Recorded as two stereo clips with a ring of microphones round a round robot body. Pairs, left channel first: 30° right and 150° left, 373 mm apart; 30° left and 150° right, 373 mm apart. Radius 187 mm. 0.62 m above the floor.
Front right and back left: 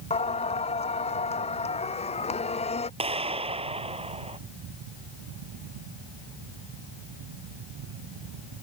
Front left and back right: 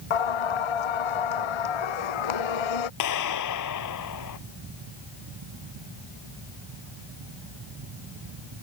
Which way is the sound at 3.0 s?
75° left.